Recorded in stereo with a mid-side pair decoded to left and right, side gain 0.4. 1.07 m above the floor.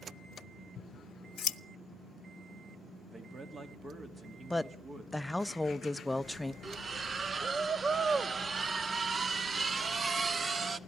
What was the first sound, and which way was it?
Scissors, 55° left.